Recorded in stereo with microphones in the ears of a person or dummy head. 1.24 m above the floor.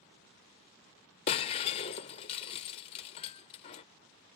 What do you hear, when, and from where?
1.3 s breaking glass: 20° left (ahead or behind)